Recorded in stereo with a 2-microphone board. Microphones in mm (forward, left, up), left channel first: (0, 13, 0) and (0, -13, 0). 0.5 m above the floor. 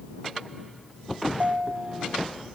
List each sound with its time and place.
1.3 s a ringtone: 75° right (ahead or behind)